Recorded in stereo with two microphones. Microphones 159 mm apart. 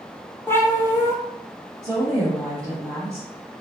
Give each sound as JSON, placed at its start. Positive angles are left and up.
{"t": 0.5, "sound": "a cat meowing", "side_deg": 15, "distance_m": 0.9}
{"t": 1.8, "sound": "a woman speaking", "side_deg": 5, "distance_m": 1.9}